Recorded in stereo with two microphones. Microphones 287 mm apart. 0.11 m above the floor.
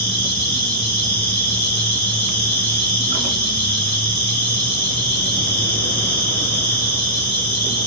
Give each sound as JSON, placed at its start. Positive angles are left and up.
{"t": 0.0, "sound": "an insect", "side_deg": 35, "distance_m": 1.5}